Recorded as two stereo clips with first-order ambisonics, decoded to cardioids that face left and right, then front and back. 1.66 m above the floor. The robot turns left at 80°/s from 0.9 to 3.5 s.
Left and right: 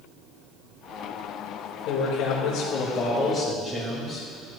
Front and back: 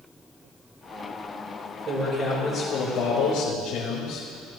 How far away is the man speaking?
About 2 m.